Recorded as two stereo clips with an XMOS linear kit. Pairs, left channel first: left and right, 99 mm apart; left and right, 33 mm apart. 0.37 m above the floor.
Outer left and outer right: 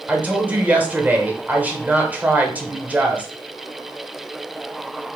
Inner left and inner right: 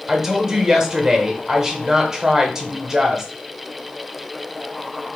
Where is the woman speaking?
15° right (ahead or behind), 0.9 m.